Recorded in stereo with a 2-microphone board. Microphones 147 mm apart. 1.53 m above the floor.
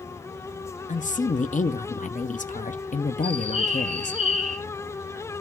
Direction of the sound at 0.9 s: 60° left (ahead or behind).